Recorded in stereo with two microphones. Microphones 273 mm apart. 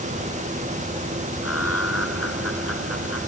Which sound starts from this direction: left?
Laughter, at 1.4 s.